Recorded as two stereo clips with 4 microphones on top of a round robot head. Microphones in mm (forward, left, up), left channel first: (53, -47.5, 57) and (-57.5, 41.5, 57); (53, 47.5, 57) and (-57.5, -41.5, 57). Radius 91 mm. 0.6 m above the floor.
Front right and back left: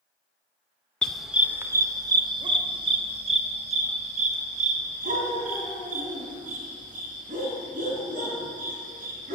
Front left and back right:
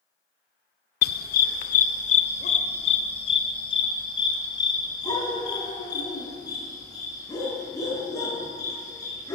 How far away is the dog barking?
About 0.7 m.